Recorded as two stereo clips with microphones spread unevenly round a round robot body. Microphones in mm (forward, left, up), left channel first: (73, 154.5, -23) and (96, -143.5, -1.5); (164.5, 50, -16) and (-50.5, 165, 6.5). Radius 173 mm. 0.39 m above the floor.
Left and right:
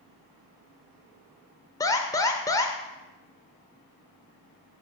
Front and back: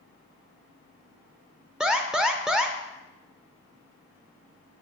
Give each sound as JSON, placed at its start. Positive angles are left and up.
{"t": 1.8, "sound": "an alarm", "azimuth_deg": 55, "distance_m": 0.6}